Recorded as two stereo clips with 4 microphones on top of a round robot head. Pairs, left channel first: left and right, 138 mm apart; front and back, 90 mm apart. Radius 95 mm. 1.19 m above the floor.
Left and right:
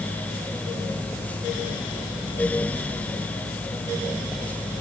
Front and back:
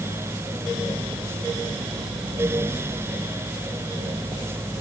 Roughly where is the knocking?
I don't hear knocking.